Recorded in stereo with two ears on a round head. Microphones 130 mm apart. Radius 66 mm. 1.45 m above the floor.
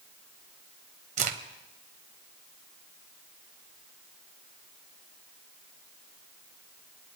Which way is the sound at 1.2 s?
55° right (ahead or behind).